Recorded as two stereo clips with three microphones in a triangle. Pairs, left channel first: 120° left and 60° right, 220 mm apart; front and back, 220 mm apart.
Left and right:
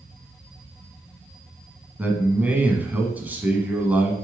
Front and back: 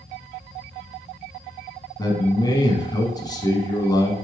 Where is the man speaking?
5° left, 1.1 m.